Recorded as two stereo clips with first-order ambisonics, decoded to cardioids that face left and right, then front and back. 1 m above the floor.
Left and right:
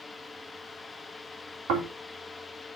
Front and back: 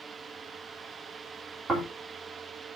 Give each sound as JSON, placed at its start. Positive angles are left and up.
{"t": 1.7, "sound": "snoring", "azimuth_deg": -110, "distance_m": 3.5}